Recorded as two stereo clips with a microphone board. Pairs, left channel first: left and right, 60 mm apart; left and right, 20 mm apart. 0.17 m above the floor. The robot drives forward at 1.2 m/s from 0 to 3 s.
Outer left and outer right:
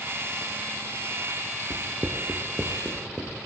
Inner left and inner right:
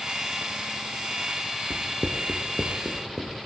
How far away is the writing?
About 0.6 m.